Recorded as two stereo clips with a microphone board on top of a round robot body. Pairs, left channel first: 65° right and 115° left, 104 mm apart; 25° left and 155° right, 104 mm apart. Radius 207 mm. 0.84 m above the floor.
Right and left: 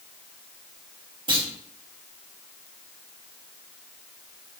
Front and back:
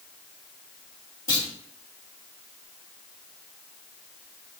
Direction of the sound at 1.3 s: 75° left.